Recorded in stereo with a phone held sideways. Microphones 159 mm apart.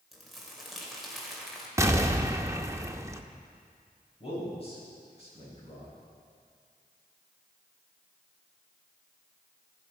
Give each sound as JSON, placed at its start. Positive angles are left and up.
{"t": 0.1, "sound": "crumpling", "side_deg": 0, "distance_m": 3.0}
{"t": 1.8, "sound": "an explosion", "side_deg": -20, "distance_m": 0.8}
{"t": 4.2, "sound": "a man speaking", "side_deg": 40, "distance_m": 6.5}